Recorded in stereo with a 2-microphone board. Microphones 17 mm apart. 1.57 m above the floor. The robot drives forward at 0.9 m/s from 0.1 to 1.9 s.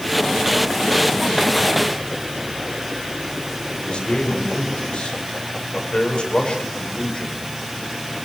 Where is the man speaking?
55° left (ahead or behind), 7.5 m.